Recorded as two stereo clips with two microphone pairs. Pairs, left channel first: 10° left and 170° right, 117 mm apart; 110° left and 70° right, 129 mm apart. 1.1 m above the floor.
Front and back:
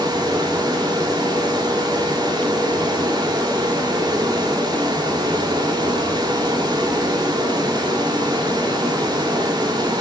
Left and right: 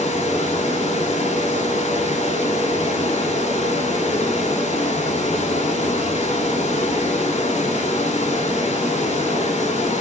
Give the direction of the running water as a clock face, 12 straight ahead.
7 o'clock.